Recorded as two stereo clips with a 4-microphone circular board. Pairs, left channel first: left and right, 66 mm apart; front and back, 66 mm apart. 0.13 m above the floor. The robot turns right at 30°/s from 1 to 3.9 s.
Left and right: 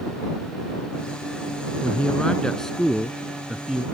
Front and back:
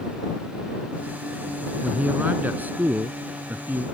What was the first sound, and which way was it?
A man speaking, 140° left.